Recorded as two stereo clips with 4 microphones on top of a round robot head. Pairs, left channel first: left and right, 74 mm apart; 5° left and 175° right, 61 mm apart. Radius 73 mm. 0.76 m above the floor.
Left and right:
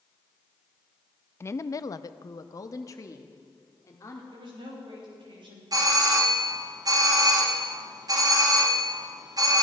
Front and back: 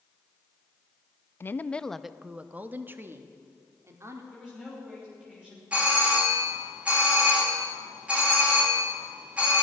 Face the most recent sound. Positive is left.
turn(degrees=-105)